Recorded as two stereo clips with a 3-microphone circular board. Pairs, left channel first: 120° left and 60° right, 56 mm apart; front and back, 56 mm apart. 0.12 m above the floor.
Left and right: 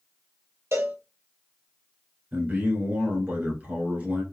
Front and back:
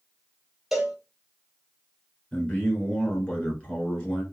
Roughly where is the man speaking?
Ahead right.